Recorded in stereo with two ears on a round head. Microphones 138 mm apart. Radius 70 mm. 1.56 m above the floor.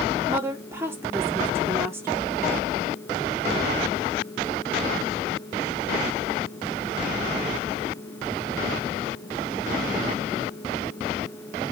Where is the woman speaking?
15° right (ahead or behind), 3.5 m.